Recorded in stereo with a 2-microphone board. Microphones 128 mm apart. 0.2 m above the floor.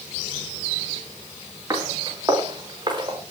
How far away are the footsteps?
About 7.5 m.